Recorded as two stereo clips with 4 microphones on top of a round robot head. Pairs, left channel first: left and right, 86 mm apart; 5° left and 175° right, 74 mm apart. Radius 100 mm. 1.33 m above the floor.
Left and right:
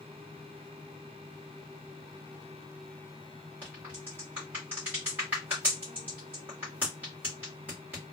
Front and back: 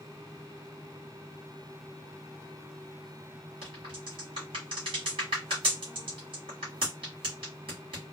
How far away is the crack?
About 1.6 m.